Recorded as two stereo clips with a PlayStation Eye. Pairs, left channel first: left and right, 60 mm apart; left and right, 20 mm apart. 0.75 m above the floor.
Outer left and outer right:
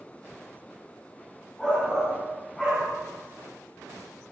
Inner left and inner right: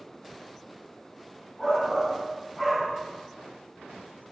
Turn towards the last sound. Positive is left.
turn(degrees=10)  # may be behind; listen again after turning